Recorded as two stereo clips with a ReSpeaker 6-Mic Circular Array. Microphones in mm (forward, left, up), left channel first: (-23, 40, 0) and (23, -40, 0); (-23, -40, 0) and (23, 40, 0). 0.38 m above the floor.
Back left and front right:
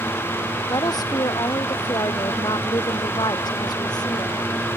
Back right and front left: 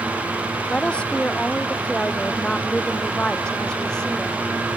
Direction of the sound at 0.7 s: 165° left.